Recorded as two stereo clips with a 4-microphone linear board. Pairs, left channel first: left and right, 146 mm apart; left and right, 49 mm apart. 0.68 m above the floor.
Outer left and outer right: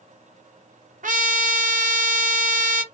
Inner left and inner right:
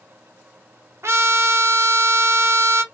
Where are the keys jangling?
I don't hear keys jangling.